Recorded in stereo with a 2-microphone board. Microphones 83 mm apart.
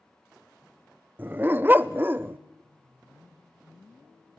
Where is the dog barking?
25° right (ahead or behind), 0.5 m.